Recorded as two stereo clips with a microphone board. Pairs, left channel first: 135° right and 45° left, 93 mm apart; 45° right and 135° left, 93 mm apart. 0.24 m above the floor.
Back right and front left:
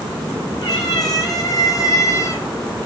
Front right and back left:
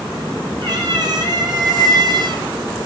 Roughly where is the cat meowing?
Behind.